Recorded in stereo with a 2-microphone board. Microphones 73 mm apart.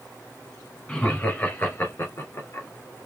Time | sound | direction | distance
0.9 | laughter | 15° left (ahead or behind) | 2.5 m